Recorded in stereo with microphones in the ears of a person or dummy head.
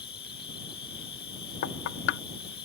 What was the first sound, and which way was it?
An insect, 25° left (ahead or behind).